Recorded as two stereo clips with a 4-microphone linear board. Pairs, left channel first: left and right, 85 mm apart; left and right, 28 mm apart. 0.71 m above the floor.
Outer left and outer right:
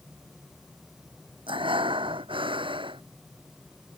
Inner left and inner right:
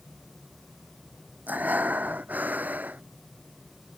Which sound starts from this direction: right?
Breathing, at 1.5 s.